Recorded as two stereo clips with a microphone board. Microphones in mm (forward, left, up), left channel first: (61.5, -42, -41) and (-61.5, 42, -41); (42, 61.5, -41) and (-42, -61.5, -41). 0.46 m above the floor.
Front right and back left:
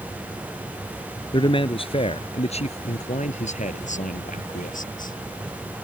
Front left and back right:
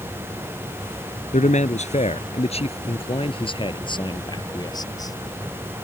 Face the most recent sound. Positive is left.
turn(degrees=-10)